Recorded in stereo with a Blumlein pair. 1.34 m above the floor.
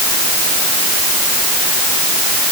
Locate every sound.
Only background noise.